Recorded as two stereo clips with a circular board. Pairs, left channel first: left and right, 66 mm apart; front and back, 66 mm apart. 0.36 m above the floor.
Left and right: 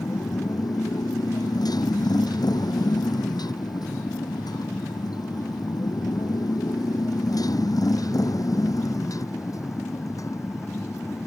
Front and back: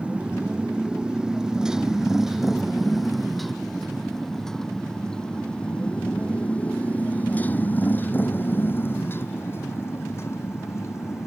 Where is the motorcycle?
110° left; by 11.3 s 50° left.